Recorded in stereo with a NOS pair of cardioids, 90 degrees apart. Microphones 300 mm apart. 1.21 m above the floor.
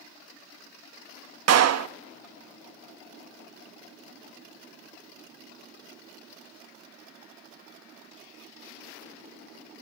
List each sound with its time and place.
1.5 s a clap: 60° right, 1.6 m